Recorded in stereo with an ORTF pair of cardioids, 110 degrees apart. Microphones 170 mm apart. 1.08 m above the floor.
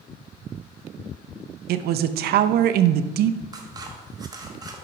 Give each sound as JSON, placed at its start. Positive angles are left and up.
{"t": 1.7, "sound": "a man speaking", "azimuth_deg": -65, "distance_m": 0.6}
{"t": 3.5, "sound": "scissors", "azimuth_deg": -25, "distance_m": 1.2}